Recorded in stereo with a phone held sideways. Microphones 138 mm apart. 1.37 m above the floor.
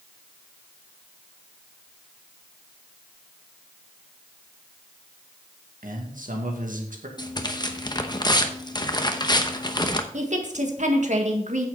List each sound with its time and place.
5.8 s a man speaking: 75° right (ahead or behind), 2.0 m
7.2 s tearing paper: 30° left (ahead or behind), 0.8 m
10.1 s a woman speaking: 60° right (ahead or behind), 1.7 m